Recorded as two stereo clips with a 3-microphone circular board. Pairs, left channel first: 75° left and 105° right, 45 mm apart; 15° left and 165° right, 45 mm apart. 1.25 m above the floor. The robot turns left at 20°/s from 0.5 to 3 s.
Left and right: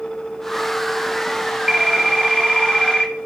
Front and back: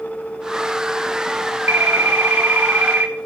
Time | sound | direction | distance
1.7 | a phone ringing | 175° left | 2 m